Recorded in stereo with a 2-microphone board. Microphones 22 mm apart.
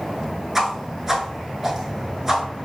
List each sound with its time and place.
0.6 s a whoosh: 15° right (ahead or behind), 0.6 m